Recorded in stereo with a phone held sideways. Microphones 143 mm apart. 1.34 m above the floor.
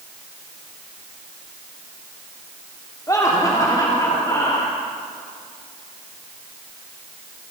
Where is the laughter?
25° left (ahead or behind), 3 m.